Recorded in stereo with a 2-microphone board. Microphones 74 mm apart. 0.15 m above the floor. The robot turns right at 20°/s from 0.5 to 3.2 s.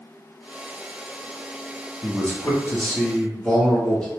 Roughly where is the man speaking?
Left.